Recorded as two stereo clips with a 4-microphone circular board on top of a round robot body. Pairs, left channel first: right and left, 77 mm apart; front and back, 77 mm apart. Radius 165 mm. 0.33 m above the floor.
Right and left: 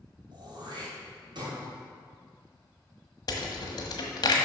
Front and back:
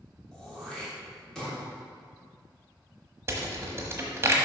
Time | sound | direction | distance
0.3 | throat clearing | 80° left | 3 m
3.3 | a rattle | 120° right | 1.1 m